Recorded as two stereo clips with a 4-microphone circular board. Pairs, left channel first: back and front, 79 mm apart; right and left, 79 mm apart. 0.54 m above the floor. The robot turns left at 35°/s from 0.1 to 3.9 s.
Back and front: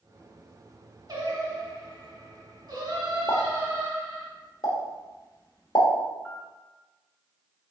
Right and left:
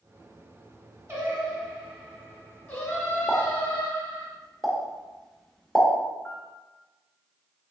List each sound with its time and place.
1.1 s singing: 30° left, 1.7 m; by 4.3 s 70° right, 1.7 m
3.3 s a pop: 150° right, 1.1 m; by 5.9 s 170° right, 1.1 m
6.2 s a piano: 125° right, 1.3 m